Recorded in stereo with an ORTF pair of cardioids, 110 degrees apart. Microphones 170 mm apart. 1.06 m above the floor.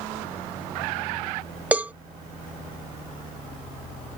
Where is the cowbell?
10° right.